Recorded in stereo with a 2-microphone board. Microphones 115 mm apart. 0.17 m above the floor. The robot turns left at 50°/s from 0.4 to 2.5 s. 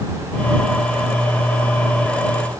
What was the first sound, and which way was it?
Only background noise.